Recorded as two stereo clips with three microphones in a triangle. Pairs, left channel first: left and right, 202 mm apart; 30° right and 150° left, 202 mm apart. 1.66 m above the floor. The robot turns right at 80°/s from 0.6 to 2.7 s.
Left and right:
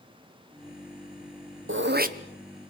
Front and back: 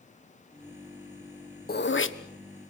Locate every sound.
1.7 s throat clearing: 70° right, 1.2 m; by 2.2 s 35° right, 1.2 m